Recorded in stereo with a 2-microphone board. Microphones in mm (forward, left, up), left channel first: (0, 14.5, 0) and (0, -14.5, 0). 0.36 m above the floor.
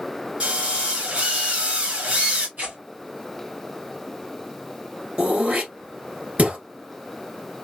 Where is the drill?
50° right (ahead or behind), 3 m.